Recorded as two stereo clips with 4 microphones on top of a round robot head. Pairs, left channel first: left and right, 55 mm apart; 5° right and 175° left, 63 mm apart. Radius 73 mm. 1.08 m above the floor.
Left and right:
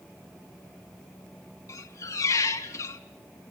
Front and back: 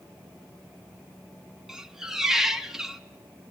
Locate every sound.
1.7 s a squeak: 95° left, 0.6 m